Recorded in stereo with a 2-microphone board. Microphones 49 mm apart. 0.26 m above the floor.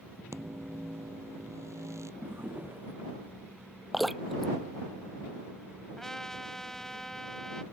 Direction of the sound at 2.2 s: 50° right (ahead or behind).